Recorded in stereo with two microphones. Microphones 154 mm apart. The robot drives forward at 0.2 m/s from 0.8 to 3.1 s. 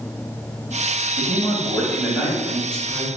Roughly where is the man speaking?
Centre.